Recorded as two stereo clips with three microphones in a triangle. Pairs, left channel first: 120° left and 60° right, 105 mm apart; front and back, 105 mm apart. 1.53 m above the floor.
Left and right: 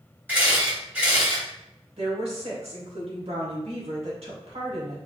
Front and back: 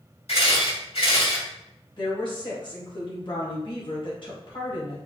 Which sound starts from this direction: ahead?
A camera shutter, at 0.3 s.